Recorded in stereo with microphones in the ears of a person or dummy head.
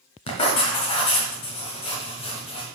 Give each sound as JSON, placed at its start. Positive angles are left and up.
{"t": 0.3, "sound": "writing", "side_deg": 30, "distance_m": 1.4}